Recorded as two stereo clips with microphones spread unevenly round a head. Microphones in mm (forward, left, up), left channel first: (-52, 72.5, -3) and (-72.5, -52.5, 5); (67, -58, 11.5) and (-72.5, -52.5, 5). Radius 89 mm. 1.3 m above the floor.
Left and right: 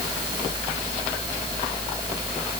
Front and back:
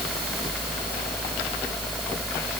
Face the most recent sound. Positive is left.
No sound to turn to.